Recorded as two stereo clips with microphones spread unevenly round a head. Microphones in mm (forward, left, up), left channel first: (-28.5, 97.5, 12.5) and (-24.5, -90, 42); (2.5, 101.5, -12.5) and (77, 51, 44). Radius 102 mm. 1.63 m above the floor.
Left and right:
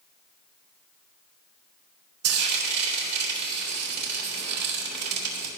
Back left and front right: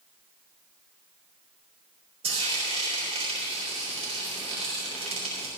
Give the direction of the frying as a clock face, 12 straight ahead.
3 o'clock.